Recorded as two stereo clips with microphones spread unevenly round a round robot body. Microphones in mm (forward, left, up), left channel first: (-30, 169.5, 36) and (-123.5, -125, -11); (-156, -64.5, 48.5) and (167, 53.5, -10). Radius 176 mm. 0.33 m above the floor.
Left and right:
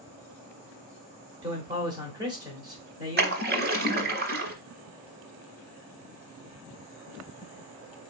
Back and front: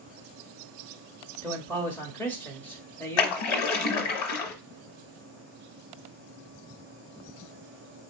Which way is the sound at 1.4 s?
60° right.